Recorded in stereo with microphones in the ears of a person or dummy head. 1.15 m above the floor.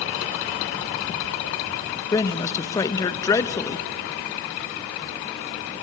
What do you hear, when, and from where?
2.1 s a man speaking: 20° left (ahead or behind), 1.0 m